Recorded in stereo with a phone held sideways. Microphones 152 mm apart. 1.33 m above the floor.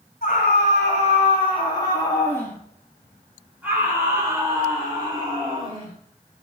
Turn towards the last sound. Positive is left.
turn(degrees=-35)  # may be behind; listen again after turning